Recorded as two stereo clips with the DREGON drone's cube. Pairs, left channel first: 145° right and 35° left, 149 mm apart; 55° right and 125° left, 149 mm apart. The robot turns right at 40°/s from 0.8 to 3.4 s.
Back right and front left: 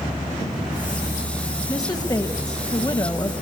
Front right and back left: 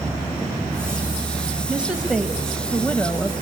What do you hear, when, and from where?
1.7 s a woman speaking: 170° right, 1.1 m; by 3.3 s 100° right, 1.1 m